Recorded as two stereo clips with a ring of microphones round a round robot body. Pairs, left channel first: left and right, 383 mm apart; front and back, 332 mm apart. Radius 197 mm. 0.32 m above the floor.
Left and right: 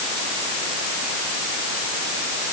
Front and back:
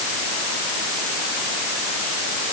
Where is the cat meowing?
No cat meowing in this recording.